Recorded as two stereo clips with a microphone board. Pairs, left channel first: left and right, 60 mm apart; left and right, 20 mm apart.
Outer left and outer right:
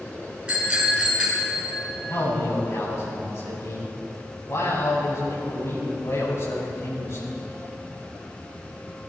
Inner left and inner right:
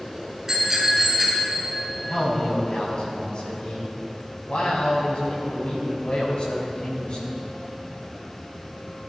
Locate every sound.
0.5 s a bicycle bell: 15° right (ahead or behind), 5 m
2.1 s a man speaking: 55° left (ahead or behind), 5.5 m